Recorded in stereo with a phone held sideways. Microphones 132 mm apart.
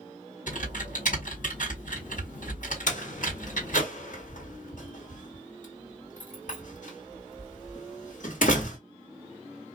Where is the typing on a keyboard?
70° left (ahead or behind), 1.9 m.